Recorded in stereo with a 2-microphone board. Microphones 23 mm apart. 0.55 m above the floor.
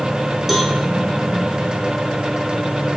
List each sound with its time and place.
0.5 s a cowbell: 5° right (ahead or behind), 2.5 m